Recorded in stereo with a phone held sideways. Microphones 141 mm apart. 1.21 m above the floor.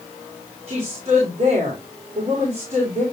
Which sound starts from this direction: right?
A woman speaking, at 0.7 s.